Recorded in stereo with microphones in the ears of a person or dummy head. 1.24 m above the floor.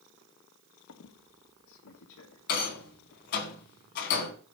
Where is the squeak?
75° left (ahead or behind), 1.6 m.